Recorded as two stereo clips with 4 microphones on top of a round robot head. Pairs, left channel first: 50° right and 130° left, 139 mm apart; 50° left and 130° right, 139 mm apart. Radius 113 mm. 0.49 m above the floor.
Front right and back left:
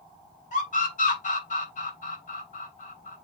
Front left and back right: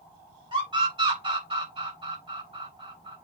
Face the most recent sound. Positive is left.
turn(degrees=-80)